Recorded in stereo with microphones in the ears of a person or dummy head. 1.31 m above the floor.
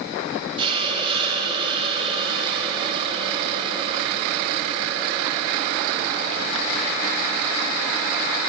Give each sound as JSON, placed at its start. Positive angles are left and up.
{"t": 0.6, "sound": "a hiss", "side_deg": -20, "distance_m": 0.7}